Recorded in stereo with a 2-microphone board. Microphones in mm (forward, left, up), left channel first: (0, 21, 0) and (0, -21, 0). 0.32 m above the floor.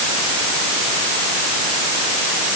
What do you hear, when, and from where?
Only background noise.